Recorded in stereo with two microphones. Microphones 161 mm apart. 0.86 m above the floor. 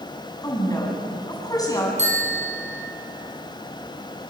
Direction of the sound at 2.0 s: 45° right (ahead or behind).